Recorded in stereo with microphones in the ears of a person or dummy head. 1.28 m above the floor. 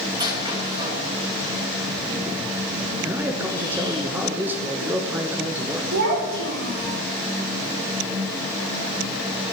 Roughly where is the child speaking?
Right.